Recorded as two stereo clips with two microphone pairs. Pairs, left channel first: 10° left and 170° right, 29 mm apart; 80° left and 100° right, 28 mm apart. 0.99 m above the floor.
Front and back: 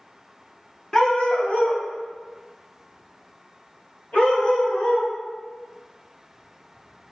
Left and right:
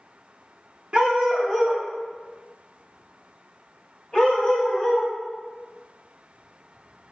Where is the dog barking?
50° right, 0.7 m; by 5.1 s 25° left, 2 m.